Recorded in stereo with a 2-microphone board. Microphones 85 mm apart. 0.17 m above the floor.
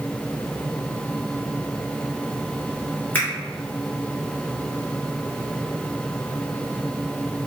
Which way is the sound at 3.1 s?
25° left (ahead or behind).